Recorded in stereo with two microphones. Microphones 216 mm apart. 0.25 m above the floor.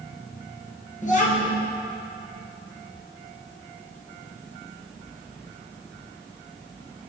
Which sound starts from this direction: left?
A child speaking, at 1.0 s.